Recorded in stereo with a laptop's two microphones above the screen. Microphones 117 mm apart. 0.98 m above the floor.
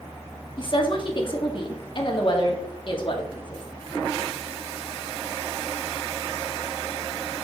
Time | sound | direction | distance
0.6 | a woman speaking | 45° left (ahead or behind) | 1.7 m